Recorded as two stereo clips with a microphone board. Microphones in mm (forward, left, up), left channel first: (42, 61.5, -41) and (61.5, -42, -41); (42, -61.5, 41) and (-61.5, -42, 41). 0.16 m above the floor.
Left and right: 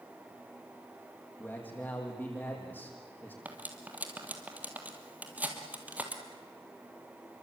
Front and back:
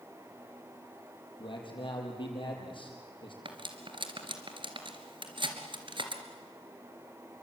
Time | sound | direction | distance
1.4 | a man speaking | 30° left | 6 m
3.5 | cutlery clinking | 155° right | 2.5 m